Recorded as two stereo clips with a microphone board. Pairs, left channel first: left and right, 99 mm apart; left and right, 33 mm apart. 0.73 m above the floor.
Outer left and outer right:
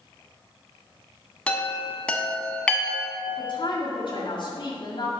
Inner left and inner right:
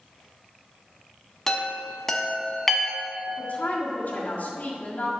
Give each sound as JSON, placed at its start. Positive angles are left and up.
{"t": 1.5, "sound": "a chime", "side_deg": 10, "distance_m": 1.0}
{"t": 3.3, "sound": "a woman speaking", "side_deg": 55, "distance_m": 1.9}